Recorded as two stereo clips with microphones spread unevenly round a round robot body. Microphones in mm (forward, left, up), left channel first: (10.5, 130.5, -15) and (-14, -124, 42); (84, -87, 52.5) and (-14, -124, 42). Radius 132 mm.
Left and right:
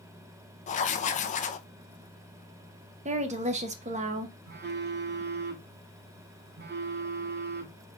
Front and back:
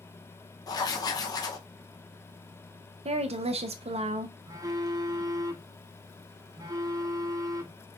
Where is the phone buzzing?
145° right, 1.0 m.